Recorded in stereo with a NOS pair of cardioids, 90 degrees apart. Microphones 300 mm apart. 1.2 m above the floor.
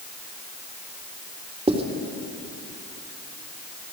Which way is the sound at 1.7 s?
20° right.